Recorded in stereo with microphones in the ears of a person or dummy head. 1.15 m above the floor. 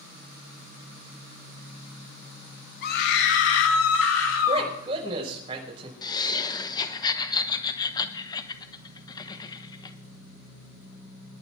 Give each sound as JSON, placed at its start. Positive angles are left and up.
{"t": 2.8, "sound": "a scream", "side_deg": 60, "distance_m": 2.5}
{"t": 4.5, "sound": "a man speaking", "side_deg": -30, "distance_m": 6.0}
{"t": 6.0, "sound": "laughter", "side_deg": 20, "distance_m": 1.1}